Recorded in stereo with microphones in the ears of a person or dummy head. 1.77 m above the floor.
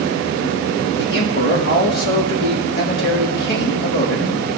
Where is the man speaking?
75° left (ahead or behind), 3 m.